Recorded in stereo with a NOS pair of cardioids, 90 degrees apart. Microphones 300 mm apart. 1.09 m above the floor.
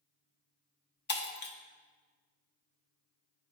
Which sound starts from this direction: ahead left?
Breaking glass, at 1.1 s.